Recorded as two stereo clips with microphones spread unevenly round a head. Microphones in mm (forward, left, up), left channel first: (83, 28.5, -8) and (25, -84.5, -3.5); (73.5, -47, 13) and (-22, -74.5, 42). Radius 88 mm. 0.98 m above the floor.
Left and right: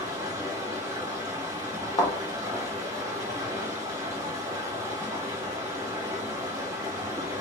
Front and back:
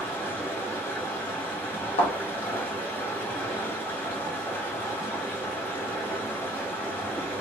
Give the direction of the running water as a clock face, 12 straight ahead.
2 o'clock.